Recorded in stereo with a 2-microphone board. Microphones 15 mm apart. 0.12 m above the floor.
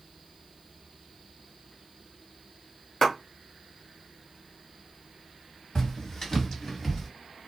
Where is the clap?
30° left (ahead or behind), 1.6 m.